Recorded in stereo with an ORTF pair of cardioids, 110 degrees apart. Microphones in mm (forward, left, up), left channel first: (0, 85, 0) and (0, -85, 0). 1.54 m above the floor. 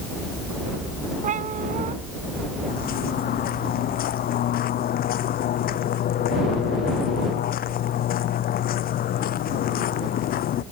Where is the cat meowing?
50° right.